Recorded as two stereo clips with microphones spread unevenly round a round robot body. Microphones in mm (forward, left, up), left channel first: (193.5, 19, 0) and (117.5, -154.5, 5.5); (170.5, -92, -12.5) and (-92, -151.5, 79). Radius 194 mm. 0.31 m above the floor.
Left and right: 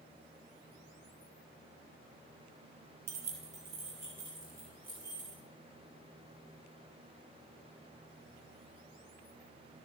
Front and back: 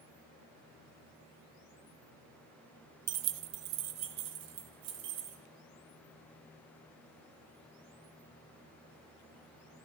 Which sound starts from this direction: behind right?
Keys jangling, at 3.1 s.